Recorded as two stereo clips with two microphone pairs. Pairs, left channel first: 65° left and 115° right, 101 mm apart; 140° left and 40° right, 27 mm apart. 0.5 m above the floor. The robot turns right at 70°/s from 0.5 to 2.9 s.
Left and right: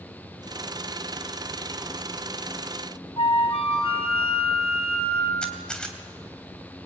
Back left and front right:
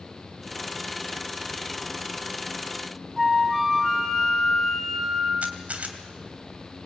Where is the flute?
50° left, 3 m.